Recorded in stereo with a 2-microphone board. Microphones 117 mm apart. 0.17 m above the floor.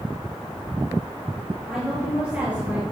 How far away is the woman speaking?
About 3 m.